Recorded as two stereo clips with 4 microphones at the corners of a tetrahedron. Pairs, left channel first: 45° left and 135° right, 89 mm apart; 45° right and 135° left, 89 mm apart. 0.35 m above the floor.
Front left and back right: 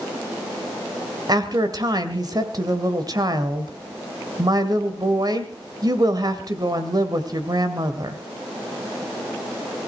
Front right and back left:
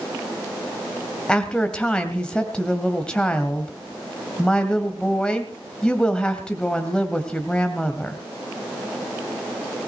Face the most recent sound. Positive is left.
turn(degrees=-120)